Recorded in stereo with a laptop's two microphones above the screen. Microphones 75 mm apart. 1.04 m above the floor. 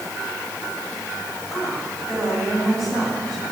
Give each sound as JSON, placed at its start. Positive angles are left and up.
{"t": 1.5, "sound": "a woman speaking", "side_deg": 0, "distance_m": 5.5}